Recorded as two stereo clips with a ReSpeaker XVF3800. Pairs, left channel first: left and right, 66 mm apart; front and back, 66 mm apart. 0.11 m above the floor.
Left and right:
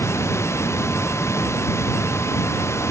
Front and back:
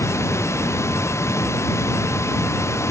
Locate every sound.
0.0 s running water: 40° left